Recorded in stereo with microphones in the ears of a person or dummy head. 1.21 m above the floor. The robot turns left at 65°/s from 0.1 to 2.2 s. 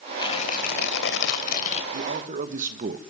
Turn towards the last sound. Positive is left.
turn(degrees=-40)  # may be behind; listen again after turning